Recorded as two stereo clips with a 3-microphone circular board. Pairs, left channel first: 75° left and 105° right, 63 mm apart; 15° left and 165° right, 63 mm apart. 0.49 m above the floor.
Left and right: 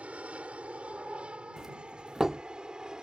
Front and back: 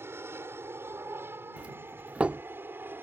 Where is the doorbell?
165° right.